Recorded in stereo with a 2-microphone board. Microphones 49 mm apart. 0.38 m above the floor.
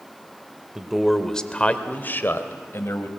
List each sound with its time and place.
0.8 s a man speaking: 10° right (ahead or behind), 1.2 m; by 3.1 s 60° left (ahead or behind), 1.8 m